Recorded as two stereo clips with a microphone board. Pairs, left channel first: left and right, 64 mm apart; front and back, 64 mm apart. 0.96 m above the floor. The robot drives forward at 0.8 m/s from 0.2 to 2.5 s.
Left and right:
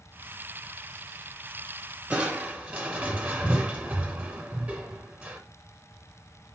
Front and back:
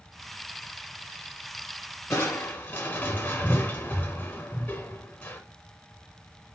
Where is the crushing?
25° right, 1.0 m; by 5.4 s 40° right, 0.8 m.